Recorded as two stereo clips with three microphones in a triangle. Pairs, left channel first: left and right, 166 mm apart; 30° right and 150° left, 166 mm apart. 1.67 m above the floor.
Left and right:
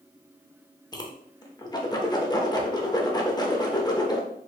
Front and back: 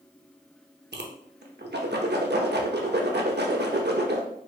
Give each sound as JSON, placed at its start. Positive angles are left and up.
{"t": 0.9, "sound": "a whoosh", "azimuth_deg": 155, "distance_m": 0.6}